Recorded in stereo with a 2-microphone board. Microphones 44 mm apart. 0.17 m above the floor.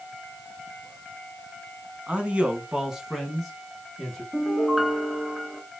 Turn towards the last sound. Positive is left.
turn(degrees=-5)  # may be behind; listen again after turning